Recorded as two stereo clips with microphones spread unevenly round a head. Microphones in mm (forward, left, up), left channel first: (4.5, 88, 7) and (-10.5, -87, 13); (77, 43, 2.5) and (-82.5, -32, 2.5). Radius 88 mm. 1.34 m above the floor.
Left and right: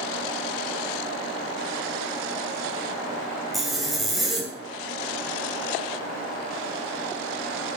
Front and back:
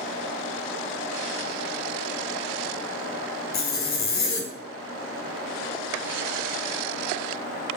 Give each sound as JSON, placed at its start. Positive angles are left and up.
{"t": 3.5, "sound": "a zipper", "azimuth_deg": -5, "distance_m": 2.0}